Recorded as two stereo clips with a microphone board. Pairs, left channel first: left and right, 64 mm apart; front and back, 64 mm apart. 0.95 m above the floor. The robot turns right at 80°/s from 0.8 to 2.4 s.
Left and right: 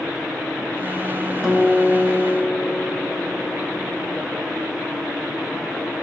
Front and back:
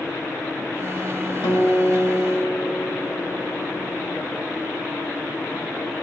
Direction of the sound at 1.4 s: 10° right.